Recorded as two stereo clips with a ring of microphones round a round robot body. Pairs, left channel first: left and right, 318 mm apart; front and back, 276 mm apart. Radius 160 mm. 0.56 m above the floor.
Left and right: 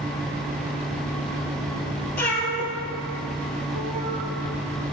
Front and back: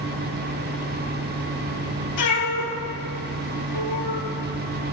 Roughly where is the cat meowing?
Ahead.